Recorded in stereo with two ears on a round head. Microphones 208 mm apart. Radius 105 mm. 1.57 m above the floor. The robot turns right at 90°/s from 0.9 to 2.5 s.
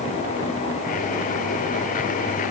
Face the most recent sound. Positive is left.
No sound to turn to.